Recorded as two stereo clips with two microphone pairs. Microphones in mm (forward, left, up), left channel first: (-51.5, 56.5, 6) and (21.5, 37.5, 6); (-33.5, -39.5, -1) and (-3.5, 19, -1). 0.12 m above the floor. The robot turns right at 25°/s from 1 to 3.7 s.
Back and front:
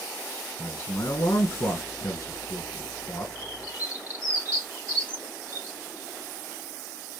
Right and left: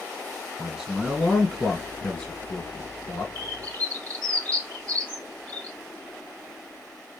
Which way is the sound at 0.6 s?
150° left.